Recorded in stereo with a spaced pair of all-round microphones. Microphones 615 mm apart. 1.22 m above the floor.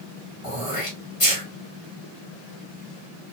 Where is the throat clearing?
55° left (ahead or behind), 1.8 m.